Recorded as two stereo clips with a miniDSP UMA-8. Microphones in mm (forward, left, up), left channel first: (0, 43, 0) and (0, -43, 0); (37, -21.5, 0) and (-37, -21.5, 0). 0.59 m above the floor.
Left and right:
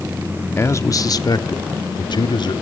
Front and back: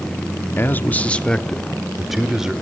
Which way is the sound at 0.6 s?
45° left.